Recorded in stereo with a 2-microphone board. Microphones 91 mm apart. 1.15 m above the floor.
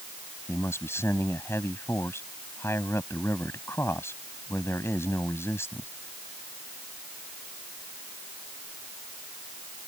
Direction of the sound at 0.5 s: 30° left (ahead or behind).